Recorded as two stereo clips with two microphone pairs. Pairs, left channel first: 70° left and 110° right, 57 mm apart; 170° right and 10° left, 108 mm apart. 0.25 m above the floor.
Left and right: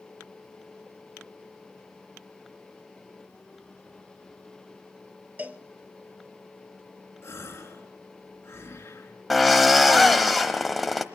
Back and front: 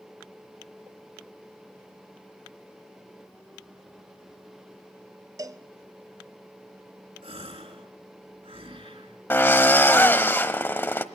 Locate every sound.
5.4 s a cowbell: 50° right, 0.8 m
7.2 s a gasp: 30° left, 3 m
9.3 s a drill: 165° left, 1.0 m